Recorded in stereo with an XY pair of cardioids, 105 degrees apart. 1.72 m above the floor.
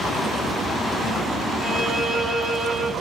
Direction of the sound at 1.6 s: 70° right.